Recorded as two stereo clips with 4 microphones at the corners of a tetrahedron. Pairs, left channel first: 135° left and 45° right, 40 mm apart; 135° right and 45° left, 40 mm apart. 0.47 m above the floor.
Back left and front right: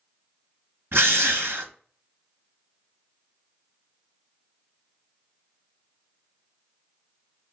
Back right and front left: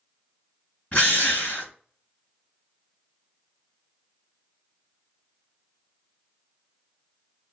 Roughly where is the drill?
Right.